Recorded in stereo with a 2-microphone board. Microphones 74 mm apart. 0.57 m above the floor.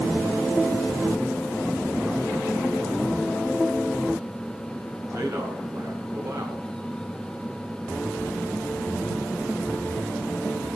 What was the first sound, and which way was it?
A man speaking, 40° right (ahead or behind).